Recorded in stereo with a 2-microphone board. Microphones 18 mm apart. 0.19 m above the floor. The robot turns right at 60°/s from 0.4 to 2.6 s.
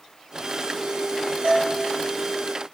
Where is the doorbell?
70° right (ahead or behind), 8 m; by 1.8 s 75° right (ahead or behind), 8 m.